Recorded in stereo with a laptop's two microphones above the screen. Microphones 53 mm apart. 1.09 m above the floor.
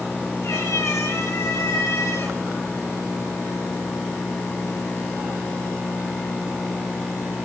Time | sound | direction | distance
0.4 | a cat meowing | 85° left | 6.5 m